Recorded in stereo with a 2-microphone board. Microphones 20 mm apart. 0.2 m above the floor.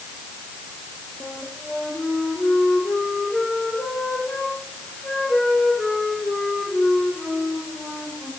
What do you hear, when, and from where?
1.2 s a flute: 80° left, 4.5 m